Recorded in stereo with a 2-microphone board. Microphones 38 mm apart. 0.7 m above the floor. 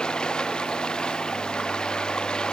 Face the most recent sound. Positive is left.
turn(degrees=20)  # may be behind; listen again after turning